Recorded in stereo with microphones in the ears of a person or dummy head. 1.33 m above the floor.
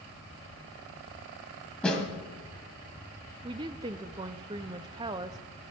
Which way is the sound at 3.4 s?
20° right (ahead or behind).